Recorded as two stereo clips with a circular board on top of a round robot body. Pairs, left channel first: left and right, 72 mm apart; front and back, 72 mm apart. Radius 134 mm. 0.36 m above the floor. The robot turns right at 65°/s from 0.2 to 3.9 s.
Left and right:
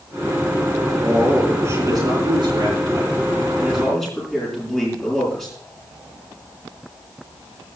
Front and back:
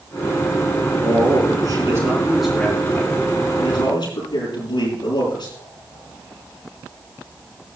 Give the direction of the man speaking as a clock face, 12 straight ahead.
6 o'clock.